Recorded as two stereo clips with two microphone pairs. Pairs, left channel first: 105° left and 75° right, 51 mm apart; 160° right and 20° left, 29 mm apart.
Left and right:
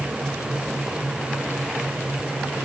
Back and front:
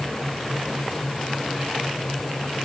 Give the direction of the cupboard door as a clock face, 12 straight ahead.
I don't hear a cupboard door.